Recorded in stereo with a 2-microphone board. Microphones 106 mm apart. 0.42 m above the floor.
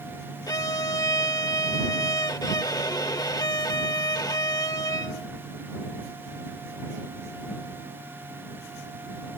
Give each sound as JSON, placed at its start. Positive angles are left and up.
{"t": 0.5, "sound": "a violin", "side_deg": 35}